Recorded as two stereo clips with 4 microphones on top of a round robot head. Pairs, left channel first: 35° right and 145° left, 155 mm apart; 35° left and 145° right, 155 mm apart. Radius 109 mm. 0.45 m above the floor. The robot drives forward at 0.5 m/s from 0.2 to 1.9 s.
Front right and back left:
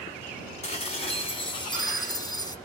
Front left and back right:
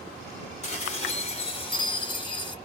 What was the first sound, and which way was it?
Dishes clattering, 5° left.